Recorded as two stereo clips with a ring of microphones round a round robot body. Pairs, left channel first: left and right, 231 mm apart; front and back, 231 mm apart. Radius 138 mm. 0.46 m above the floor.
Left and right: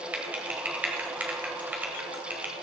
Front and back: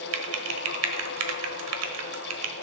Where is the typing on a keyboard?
175° right, 1.3 m.